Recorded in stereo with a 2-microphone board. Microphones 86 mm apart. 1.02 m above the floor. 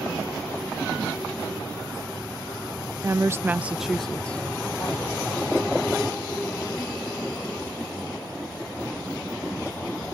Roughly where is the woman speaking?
Right.